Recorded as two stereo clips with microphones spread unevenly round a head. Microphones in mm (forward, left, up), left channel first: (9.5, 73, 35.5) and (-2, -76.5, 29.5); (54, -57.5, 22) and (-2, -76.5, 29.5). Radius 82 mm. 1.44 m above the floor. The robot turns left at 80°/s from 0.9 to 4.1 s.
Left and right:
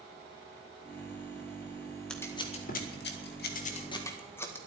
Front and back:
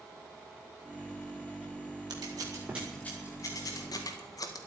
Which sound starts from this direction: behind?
Scissors, at 2.1 s.